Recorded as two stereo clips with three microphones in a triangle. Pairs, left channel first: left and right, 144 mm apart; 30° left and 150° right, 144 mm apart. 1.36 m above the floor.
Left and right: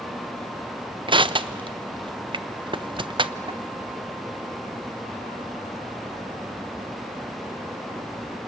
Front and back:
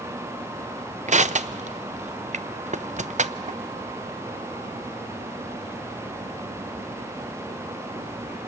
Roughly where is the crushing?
Behind right.